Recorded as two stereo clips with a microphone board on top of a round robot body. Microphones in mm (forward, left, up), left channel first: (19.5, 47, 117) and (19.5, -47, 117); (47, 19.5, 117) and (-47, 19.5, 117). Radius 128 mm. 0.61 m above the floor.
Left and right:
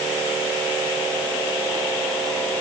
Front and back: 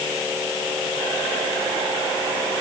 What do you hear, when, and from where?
Only background noise.